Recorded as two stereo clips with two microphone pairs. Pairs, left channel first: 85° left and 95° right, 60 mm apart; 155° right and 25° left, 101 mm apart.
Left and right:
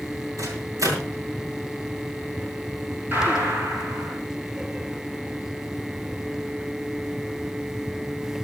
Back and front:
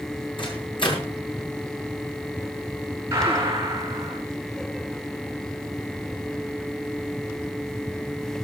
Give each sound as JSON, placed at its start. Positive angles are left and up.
{"t": 0.4, "sound": "a microwave", "azimuth_deg": -120, "distance_m": 7.5}
{"t": 3.1, "sound": "a gunshot", "azimuth_deg": -40, "distance_m": 10.0}